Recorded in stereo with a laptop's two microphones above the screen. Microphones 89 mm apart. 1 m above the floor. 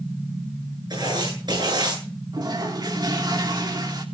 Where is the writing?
50° right (ahead or behind), 9 m.